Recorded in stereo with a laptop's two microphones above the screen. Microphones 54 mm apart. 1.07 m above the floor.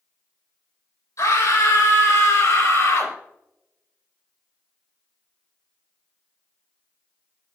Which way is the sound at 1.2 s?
85° left.